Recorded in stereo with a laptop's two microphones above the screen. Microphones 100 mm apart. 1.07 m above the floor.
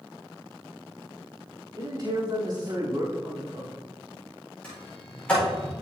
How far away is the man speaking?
About 3.5 m.